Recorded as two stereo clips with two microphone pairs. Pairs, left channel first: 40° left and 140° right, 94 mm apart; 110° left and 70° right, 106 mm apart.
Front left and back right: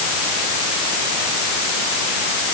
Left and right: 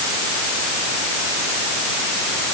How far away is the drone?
I don't hear a drone.